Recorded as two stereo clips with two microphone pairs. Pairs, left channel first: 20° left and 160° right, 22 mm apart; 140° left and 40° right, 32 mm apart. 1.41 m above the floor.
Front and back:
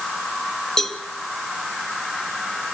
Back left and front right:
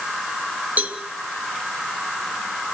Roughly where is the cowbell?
Ahead right.